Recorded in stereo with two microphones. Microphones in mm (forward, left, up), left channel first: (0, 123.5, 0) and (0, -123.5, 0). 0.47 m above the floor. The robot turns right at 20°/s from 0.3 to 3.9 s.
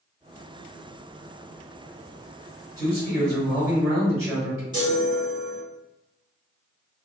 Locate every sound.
2.8 s a man speaking: 15° left (ahead or behind), 1.7 m; by 4.6 s centre (ahead or behind), 1.7 m
4.7 s a chime: 15° right (ahead or behind), 1.3 m